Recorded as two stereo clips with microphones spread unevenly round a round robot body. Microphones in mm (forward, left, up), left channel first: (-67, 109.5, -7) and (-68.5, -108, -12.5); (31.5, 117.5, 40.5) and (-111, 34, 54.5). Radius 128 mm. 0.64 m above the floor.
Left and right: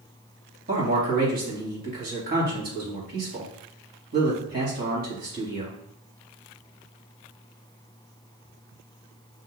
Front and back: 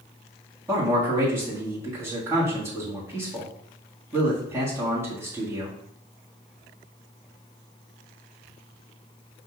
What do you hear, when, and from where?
0.7 s a man speaking: 75° right, 1.5 m